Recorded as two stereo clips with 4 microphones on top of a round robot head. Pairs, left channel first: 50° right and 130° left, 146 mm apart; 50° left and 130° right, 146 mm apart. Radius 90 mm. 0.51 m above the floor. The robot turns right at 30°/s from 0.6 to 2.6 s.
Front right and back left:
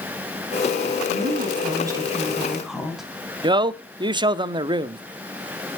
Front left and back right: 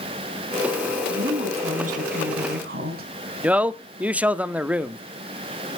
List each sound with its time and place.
1.1 s a woman speaking: 175° left, 4.5 m; by 3.1 s 140° right, 4.5 m
3.4 s a man speaking: 155° left, 0.7 m